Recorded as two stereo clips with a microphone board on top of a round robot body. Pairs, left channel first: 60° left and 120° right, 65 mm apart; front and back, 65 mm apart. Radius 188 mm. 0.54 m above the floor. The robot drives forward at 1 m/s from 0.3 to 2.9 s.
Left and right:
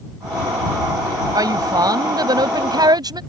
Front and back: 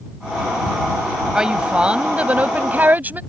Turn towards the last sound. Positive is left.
turn(degrees=-115)